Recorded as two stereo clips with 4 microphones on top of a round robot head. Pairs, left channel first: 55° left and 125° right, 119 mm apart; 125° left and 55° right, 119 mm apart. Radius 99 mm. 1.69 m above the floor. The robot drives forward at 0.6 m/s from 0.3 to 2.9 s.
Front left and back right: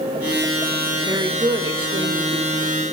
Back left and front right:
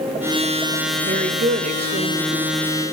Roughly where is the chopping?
I don't hear chopping.